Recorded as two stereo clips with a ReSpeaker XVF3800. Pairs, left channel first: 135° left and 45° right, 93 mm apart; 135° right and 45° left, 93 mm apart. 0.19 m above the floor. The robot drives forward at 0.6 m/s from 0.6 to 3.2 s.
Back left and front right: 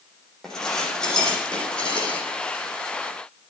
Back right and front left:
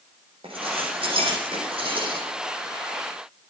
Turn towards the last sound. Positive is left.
turn(degrees=65)